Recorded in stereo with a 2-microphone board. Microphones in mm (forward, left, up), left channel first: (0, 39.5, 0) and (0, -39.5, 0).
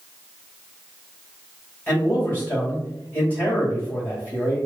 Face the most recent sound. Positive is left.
turn(degrees=20)  # may be behind; listen again after turning